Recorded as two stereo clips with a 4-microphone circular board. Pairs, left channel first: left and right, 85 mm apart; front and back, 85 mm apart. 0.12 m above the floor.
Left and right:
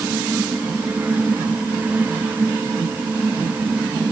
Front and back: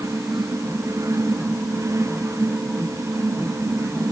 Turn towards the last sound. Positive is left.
No sound to turn to.